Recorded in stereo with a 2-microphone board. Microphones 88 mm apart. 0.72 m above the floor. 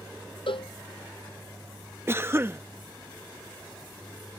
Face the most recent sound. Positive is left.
turn(degrees=-25)  # may be behind; listen again after turning